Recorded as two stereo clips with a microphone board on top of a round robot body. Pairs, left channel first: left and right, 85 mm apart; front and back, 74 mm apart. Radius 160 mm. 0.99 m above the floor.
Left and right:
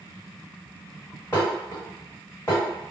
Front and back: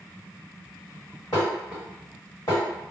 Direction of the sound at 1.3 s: 35° left.